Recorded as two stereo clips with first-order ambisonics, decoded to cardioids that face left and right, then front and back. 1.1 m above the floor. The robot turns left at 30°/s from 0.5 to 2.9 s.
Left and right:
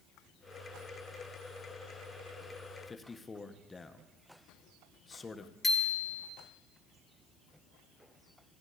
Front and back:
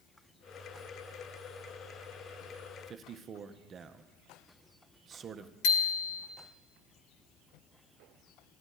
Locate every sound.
2.9 s a man speaking: 150° left, 0.6 m
5.6 s a bicycle bell: 10° left, 2 m